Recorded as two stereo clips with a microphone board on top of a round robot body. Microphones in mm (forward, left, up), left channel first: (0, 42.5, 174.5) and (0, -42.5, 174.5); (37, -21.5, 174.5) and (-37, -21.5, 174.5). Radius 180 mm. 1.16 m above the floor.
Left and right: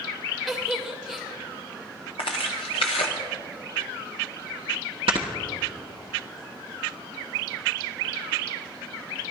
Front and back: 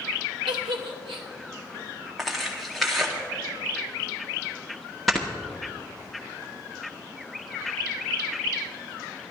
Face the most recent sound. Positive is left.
turn(degrees=-90)